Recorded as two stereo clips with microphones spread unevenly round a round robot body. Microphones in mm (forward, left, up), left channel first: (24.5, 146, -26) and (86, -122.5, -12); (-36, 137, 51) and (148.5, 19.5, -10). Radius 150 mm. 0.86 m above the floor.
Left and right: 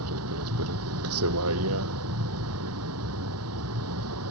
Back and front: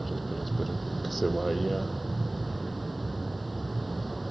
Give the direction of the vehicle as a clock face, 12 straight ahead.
4 o'clock.